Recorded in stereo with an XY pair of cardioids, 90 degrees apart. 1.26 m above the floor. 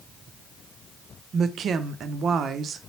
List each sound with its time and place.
1.3 s a woman speaking: 70° right, 0.5 m